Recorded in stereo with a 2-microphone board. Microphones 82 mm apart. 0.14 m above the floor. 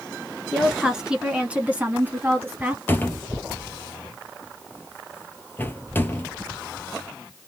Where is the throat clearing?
No throat clearing in this recording.